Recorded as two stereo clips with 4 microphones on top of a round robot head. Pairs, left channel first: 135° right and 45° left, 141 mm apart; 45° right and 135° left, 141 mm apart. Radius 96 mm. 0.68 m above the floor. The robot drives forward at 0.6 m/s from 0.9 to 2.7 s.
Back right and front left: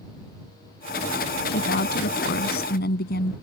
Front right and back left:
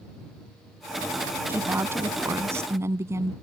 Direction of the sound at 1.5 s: 150° right.